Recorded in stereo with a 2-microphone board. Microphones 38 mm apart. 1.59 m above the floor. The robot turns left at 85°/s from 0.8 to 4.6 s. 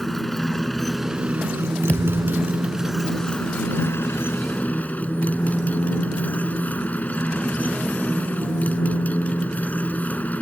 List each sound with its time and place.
0.0 s a motorcycle: 5° left; by 10.4 s 45° left
1.9 s a thud: 140° left; by 2.7 s 75° left